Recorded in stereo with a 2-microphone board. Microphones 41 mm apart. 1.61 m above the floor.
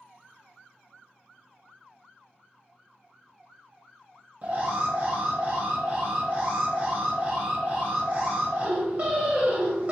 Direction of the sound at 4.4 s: 35° right (ahead or behind).